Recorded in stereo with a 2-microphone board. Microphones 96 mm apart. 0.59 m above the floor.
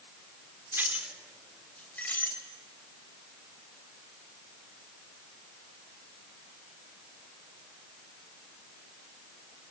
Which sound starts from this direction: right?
Keys jangling, at 0.7 s.